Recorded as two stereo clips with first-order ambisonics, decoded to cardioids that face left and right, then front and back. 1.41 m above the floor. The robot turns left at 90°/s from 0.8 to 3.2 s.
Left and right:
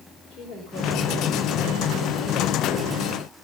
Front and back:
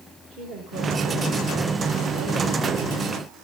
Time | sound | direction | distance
0.3 | a woman speaking | 150° left | 5 m